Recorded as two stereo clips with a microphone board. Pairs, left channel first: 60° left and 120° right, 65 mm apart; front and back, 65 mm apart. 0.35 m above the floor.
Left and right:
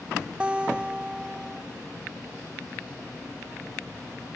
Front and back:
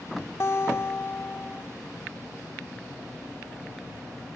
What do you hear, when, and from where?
0.4 s a guitar: 45° right, 0.8 m